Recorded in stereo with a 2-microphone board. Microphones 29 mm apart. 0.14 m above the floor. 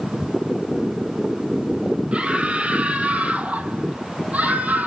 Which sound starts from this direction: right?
A scream, at 2.1 s.